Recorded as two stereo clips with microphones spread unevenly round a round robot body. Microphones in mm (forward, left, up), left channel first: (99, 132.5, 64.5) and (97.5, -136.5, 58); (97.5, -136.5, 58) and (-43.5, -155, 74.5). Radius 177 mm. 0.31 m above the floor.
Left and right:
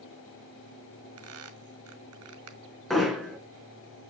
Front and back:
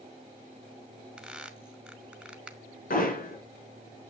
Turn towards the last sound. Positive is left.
turn(degrees=0)